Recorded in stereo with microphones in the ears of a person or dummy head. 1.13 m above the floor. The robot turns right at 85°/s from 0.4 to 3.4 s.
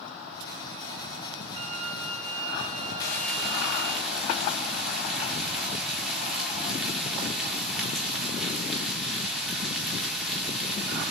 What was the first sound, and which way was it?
A violin, 150° right.